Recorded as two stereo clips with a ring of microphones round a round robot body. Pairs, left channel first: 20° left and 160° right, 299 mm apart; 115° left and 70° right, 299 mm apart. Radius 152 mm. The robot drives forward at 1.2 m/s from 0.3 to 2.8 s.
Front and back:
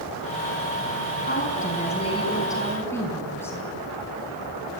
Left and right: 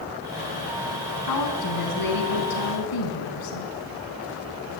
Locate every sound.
1.2 s a woman speaking: 80° left, 5 m; by 3.7 s 105° left, 5 m